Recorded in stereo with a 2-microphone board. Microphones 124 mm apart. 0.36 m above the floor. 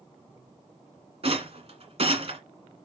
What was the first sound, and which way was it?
A rattle, 55° right (ahead or behind).